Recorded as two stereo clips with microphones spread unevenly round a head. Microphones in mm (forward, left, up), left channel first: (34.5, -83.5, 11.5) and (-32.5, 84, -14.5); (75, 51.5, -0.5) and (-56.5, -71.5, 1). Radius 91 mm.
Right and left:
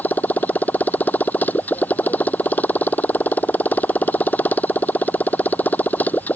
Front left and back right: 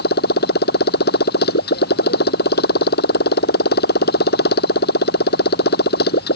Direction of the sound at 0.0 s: 10° left.